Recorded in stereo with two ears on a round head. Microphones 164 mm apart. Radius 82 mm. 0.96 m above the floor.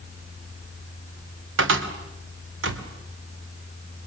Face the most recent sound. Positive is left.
turn(degrees=-75)  # may be behind; listen again after turning